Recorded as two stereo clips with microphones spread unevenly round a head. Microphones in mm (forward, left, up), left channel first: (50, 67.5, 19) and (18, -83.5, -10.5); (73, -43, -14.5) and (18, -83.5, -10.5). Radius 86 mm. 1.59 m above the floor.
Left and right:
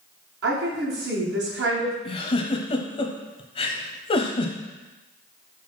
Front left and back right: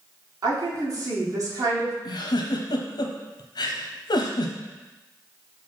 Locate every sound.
0.4 s a woman speaking: 105° right, 1.6 m
2.0 s a giggle: 20° left, 0.6 m